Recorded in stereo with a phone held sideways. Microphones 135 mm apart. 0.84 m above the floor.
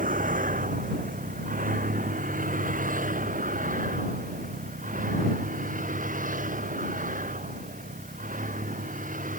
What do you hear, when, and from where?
0.0 s a vehicle: 90° right; by 9.4 s 75° right (ahead or behind)